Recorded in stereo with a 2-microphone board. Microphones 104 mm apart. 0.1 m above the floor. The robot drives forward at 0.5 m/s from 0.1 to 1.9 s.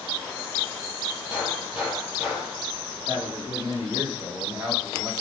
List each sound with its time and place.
1.3 s a gunshot: 10° right (ahead or behind), 3.5 m
3.1 s a man speaking: 10° right (ahead or behind), 4 m